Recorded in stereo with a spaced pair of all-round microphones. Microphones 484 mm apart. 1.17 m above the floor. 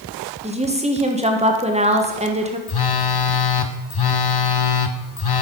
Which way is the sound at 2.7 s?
50° left (ahead or behind).